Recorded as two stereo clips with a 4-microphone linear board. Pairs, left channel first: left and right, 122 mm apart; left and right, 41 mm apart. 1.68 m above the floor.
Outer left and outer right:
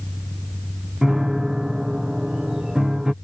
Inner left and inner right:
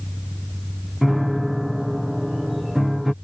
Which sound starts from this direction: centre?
A piano, at 1.0 s.